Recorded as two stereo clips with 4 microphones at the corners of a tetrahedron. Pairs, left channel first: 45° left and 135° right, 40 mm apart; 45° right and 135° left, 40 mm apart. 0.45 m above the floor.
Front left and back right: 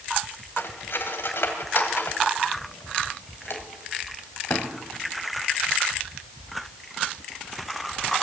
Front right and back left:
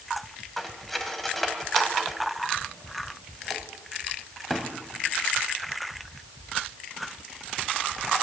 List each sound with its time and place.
0.6 s cutlery clinking: 40° left, 1.7 m